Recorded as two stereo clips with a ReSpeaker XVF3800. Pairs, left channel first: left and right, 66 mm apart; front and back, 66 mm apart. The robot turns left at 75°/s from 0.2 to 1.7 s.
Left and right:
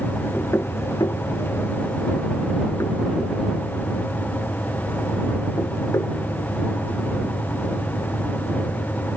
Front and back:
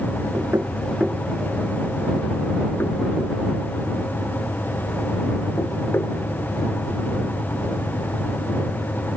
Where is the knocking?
155° left; by 6.2 s 50° left.